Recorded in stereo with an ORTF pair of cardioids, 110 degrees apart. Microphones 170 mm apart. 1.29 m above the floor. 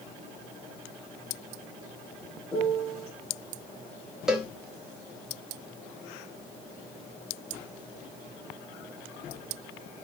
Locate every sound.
2.5 s a piano: 5° left, 2.5 m
4.3 s a cowbell: 5° right, 1.0 m